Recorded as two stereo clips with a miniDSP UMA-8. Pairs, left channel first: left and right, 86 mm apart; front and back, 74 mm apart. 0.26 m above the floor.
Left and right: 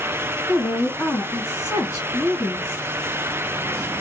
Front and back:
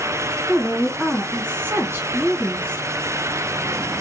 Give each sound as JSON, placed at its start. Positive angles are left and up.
{"t": 0.5, "sound": "a woman speaking", "azimuth_deg": 135, "distance_m": 1.9}